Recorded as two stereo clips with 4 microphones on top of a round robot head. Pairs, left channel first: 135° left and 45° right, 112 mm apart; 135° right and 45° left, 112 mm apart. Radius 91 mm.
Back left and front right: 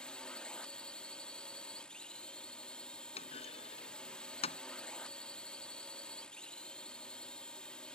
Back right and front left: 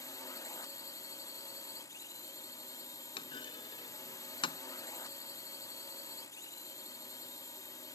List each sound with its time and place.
0.0 s a drone: 150° right
3.2 s a clunk: 175° left